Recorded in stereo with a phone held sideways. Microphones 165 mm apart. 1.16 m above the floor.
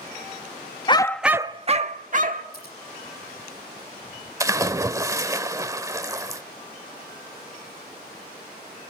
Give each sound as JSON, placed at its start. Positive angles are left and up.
{"t": 0.9, "sound": "a dog barking", "side_deg": 30, "distance_m": 0.6}
{"t": 2.5, "sound": "scissors", "side_deg": 65, "distance_m": 8.5}
{"t": 4.4, "sound": "a splash", "side_deg": -20, "distance_m": 0.9}